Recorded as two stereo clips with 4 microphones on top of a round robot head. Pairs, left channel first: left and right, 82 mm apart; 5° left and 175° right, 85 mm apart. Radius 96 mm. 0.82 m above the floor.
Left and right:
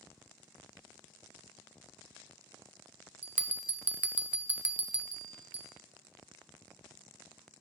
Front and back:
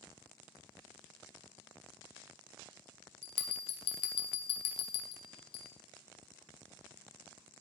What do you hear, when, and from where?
3.2 s a bell: 15° right, 0.5 m